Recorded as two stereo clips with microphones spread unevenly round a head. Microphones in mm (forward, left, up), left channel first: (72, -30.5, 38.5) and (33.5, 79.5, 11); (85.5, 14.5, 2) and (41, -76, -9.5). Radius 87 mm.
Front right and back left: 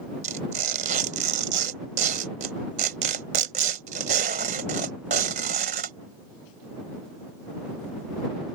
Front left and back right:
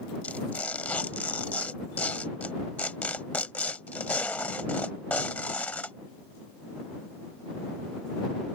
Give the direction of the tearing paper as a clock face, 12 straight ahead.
7 o'clock.